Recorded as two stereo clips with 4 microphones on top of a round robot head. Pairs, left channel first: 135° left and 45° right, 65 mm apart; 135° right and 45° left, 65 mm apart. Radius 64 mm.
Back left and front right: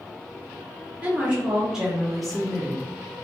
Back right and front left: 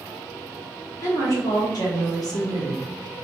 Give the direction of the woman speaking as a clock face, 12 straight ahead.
4 o'clock.